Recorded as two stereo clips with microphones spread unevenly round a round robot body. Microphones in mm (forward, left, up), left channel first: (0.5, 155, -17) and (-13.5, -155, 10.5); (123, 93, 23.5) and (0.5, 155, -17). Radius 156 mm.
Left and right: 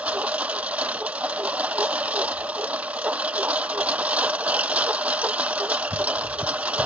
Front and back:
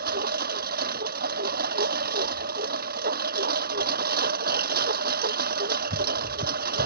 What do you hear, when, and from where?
0.0 s a lawn mower: straight behind